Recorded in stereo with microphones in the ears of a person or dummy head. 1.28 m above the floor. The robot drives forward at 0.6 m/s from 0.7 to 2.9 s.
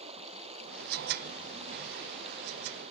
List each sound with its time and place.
0.0 s running water: 35° right (ahead or behind); by 2.9 s 30° right (ahead or behind)